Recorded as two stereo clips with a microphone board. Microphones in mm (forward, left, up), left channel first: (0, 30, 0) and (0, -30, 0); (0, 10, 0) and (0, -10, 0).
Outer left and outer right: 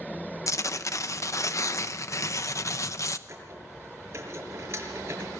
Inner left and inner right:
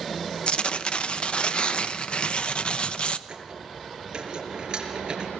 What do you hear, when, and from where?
0.5 s tearing paper: 55° left (ahead or behind), 0.9 m
3.3 s a squeak: 45° right (ahead or behind), 5.5 m